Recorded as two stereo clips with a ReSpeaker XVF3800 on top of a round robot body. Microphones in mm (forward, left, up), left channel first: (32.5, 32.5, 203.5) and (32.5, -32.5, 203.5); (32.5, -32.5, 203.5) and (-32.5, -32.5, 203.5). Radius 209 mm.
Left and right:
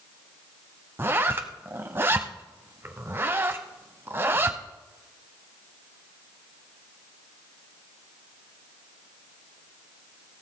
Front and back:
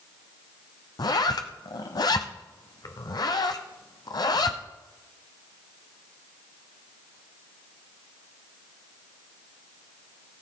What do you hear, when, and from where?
1.0 s a zipper: 30° right, 0.7 m